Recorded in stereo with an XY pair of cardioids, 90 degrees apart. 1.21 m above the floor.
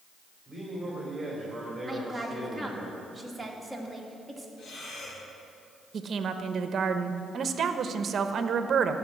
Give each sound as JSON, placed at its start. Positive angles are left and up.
{"t": 0.5, "sound": "a man speaking", "azimuth_deg": -20, "distance_m": 3.0}
{"t": 1.9, "sound": "a woman speaking", "azimuth_deg": -10, "distance_m": 2.0}
{"t": 4.6, "sound": "breathing", "azimuth_deg": 60, "distance_m": 4.0}
{"t": 5.9, "sound": "a woman speaking", "azimuth_deg": -55, "distance_m": 0.9}